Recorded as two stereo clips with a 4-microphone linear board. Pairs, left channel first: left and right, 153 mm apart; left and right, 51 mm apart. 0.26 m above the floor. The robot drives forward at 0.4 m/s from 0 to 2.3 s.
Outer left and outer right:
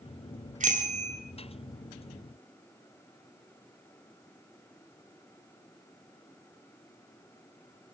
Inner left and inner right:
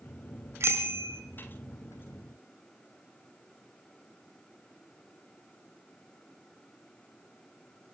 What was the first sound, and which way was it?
A bicycle bell, 60° right (ahead or behind).